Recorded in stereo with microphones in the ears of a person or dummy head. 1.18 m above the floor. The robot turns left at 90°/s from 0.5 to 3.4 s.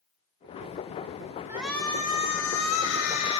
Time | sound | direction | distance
1.5 | a shout | 170° right | 6 m